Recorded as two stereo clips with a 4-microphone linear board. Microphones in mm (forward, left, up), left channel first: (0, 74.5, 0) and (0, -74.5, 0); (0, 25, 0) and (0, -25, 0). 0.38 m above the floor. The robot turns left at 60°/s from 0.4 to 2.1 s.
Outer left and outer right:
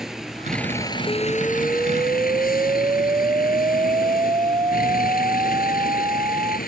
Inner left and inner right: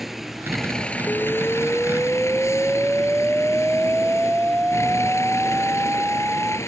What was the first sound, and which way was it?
A vehicle, 175° right.